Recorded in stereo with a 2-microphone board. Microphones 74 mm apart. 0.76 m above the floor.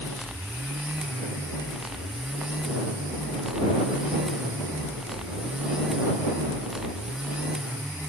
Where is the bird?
No bird in this recording.